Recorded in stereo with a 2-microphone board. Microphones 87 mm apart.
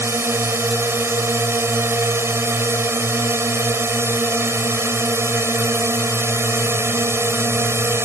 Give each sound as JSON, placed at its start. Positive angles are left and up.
{"t": 0.0, "sound": "a drone", "side_deg": -30}